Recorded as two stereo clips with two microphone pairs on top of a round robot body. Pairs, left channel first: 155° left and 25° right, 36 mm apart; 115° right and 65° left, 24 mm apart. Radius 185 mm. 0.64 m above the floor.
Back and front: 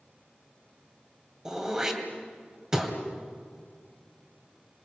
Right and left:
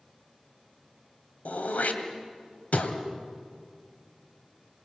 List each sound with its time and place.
1.4 s throat clearing: 100° right, 2.5 m